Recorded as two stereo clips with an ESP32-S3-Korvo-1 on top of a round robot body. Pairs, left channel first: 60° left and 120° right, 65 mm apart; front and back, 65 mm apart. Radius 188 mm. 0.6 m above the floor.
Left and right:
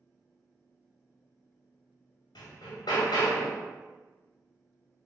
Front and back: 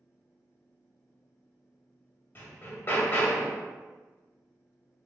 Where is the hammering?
60° left, 1.2 m.